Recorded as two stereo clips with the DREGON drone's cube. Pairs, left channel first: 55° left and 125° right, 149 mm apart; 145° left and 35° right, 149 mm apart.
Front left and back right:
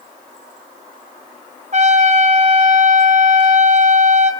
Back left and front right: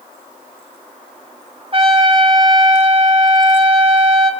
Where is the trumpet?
85° right, 2.5 m.